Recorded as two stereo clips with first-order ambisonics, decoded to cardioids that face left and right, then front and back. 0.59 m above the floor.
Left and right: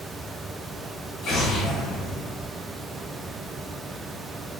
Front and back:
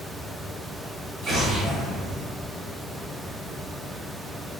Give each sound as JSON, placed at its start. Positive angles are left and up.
{"t": 1.2, "sound": "an explosion", "azimuth_deg": 130, "distance_m": 1.5}